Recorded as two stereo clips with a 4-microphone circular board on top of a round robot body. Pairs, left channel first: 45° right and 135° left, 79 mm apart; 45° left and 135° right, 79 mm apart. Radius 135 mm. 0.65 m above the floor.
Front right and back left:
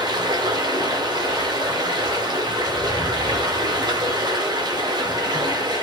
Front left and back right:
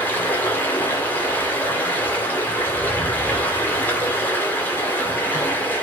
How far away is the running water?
About 3 m.